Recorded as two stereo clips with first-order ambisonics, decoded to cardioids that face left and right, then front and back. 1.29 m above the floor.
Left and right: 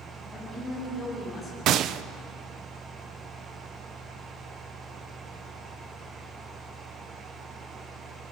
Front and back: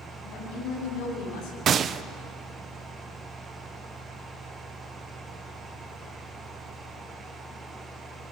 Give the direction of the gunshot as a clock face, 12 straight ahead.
4 o'clock.